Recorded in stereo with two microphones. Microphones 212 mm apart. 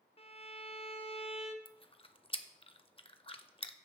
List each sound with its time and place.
0.2 s a violin: 30° left (ahead or behind), 0.8 m
1.6 s chewing: 25° left (ahead or behind), 0.6 m